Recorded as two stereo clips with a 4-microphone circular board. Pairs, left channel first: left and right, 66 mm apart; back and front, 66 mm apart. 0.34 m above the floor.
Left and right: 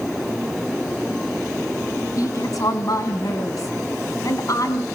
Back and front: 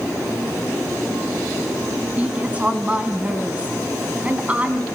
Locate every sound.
2.2 s a woman speaking: 65° left, 2.5 m